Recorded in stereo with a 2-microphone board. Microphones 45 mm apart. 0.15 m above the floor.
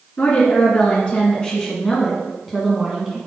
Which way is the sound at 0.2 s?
35° left (ahead or behind).